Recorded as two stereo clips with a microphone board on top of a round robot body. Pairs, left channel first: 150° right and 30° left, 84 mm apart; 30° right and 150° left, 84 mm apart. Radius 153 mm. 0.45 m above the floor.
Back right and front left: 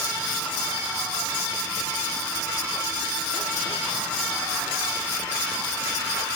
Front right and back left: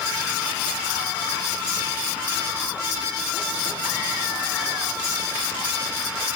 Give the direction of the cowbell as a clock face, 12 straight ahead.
No cowbell in this recording.